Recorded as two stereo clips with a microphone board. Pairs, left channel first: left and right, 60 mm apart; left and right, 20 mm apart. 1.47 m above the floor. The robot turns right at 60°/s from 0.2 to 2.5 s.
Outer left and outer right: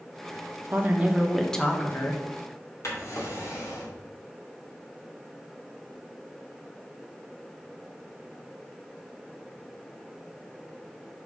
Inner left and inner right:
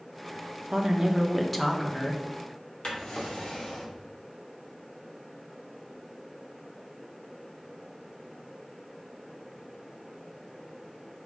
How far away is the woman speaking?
About 1.2 m.